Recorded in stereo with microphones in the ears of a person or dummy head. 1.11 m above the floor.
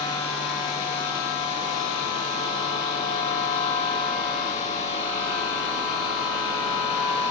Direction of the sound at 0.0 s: 35° left (ahead or behind).